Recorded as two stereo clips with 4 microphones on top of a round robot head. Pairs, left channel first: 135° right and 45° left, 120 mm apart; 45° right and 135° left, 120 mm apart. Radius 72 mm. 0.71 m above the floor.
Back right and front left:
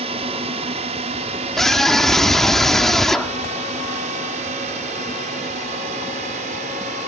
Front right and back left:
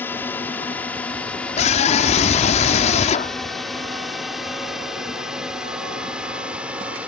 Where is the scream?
50° right.